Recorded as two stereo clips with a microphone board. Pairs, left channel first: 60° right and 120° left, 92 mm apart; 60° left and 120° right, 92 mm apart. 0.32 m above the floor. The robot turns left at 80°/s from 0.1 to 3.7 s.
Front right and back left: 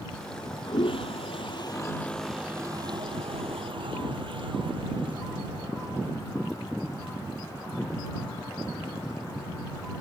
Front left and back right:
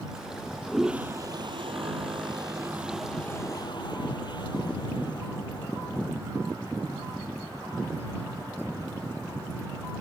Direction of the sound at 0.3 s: 5° left.